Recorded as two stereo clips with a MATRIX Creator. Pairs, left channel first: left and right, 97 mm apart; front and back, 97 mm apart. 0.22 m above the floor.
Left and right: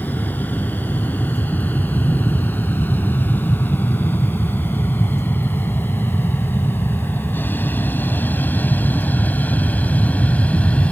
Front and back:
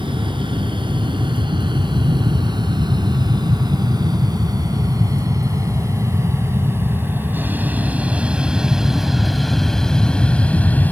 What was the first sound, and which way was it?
An aircraft, 160° left.